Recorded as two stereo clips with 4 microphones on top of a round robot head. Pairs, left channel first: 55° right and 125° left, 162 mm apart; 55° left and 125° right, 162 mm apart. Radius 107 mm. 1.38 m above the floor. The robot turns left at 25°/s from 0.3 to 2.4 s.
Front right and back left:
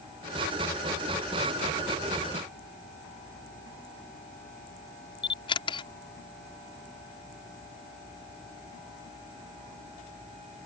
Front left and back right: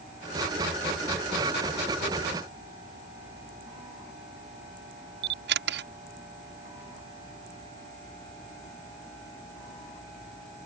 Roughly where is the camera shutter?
Behind right.